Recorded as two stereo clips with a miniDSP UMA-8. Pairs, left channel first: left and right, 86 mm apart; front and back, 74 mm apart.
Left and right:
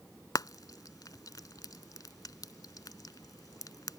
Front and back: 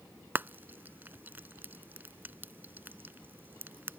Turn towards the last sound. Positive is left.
turn(degrees=125)